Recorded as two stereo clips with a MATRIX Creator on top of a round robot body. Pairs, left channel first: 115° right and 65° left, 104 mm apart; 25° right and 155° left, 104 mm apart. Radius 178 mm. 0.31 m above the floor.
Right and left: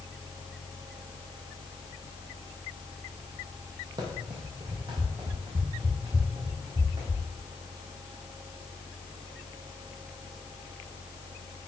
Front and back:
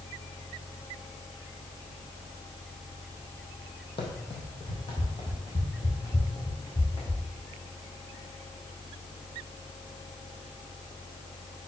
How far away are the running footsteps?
About 1.3 m.